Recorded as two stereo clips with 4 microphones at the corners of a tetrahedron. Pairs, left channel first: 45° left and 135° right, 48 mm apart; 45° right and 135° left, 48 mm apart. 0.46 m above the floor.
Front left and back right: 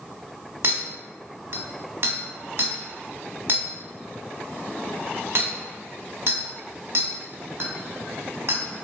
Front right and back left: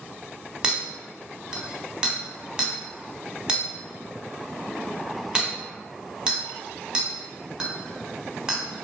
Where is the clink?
155° right, 0.6 m.